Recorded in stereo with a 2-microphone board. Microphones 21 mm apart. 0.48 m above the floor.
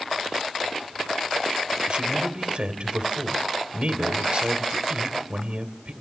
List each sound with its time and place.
1.9 s a man speaking: 55° right (ahead or behind), 2 m